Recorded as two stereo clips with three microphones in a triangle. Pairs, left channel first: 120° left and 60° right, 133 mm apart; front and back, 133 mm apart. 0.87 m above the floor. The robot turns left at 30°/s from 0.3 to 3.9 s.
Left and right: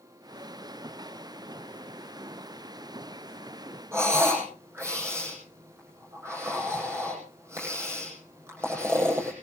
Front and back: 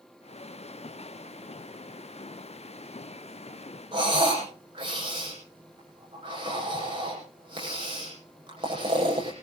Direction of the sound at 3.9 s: 130° right.